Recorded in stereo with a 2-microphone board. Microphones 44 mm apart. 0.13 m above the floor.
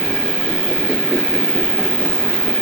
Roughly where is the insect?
Centre.